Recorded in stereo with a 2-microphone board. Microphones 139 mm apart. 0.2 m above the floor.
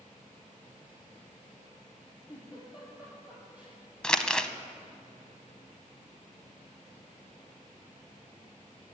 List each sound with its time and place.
2.3 s a giggle: 10° right (ahead or behind), 4.5 m
4.0 s crumpling: 5° left (ahead or behind), 0.6 m